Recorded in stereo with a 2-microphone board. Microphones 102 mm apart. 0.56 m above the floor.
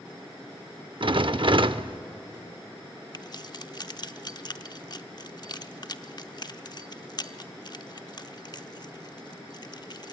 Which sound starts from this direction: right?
A rattle, at 1.0 s.